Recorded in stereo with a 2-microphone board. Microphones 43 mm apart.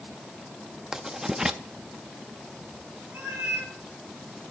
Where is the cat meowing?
60° right (ahead or behind), 4 m.